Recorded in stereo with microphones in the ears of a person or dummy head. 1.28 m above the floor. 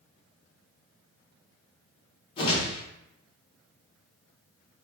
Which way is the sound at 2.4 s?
35° left (ahead or behind).